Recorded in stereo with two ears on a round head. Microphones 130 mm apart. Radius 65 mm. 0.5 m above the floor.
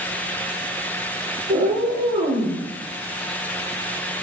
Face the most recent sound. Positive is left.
turn(degrees=-40)  # may be behind; listen again after turning